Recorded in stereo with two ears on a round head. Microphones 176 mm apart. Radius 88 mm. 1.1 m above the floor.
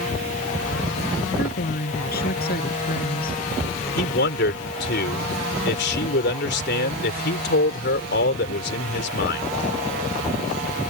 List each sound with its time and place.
1.4 s a woman speaking: 50° left (ahead or behind)
4.0 s a man speaking: 55° left (ahead or behind)